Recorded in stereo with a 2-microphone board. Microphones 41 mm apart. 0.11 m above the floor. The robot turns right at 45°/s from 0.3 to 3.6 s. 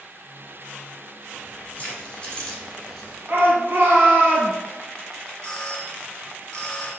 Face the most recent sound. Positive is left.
turn(degrees=20)  # may be behind; listen again after turning